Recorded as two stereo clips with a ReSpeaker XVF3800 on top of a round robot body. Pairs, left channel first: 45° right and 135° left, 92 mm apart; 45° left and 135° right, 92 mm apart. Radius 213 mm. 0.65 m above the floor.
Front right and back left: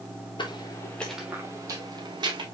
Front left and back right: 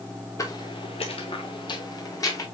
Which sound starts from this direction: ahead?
Footsteps, at 0.4 s.